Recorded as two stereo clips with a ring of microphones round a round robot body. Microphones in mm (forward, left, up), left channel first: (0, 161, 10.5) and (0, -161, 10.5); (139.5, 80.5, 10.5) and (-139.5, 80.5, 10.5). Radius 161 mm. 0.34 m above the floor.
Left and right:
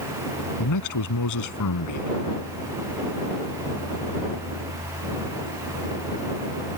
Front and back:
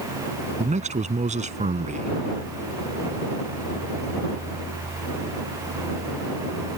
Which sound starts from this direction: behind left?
A man speaking, at 0.6 s.